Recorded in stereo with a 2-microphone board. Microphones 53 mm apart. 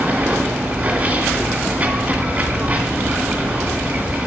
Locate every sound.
0.0 s running water: 35° right (ahead or behind), 2 m